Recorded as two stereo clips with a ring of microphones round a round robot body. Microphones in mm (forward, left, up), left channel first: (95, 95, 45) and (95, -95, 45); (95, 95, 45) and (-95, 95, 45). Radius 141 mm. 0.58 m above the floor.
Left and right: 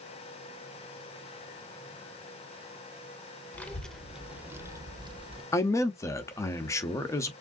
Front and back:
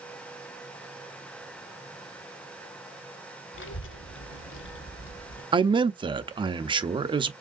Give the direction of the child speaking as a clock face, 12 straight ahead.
12 o'clock.